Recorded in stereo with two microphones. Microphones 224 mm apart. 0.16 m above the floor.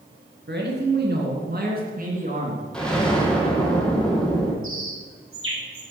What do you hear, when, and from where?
0.5 s a man speaking: 50° right (ahead or behind), 2.5 m; by 2.7 s 30° right (ahead or behind), 2.5 m
2.7 s an explosion: 5° left (ahead or behind), 1.7 m
4.6 s a bird: 65° right (ahead or behind), 2.5 m